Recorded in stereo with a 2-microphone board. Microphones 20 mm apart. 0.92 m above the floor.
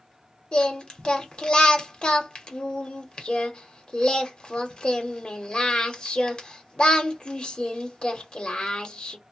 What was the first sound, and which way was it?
Singing, 45° left (ahead or behind).